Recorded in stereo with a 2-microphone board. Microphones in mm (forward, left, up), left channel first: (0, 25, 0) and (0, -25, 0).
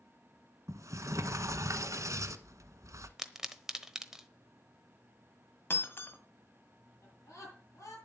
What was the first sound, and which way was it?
A sliding door, 80° right.